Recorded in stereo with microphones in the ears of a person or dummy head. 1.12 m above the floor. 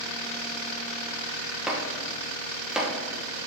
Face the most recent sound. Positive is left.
turn(degrees=0)  # may be behind; listen again after turning